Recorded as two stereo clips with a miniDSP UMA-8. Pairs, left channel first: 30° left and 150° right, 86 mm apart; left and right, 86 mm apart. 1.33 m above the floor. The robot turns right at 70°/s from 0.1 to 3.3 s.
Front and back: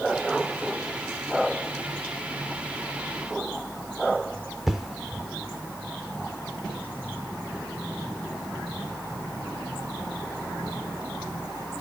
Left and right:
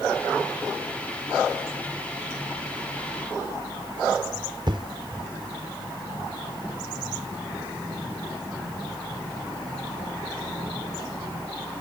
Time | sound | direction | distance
4.7 | an explosion | 65° right | ?